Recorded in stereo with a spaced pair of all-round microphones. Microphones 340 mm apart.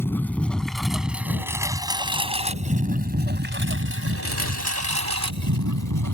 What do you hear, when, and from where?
0.0 s a lawn mower: 5° left (ahead or behind); by 6.2 s 65° right (ahead or behind)